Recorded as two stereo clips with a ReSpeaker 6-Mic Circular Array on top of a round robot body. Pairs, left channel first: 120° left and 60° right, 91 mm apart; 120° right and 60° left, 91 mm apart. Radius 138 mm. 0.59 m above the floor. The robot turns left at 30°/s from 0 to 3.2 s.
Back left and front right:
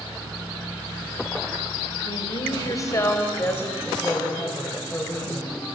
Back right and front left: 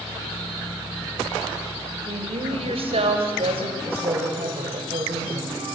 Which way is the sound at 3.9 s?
45° left.